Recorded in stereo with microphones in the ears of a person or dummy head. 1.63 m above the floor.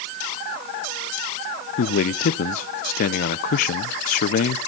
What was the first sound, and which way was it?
A man speaking, 55° left (ahead or behind).